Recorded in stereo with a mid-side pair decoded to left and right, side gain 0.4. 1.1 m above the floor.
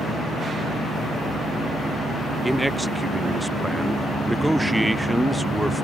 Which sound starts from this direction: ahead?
A man speaking, at 2.4 s.